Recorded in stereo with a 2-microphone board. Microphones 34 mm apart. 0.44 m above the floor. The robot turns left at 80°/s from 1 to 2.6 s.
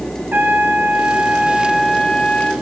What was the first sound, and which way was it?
A trumpet, 110° right.